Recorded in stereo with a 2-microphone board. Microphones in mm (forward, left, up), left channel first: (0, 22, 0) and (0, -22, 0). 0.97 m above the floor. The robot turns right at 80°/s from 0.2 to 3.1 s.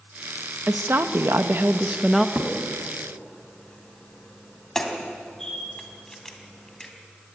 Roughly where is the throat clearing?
No throat clearing in this recording.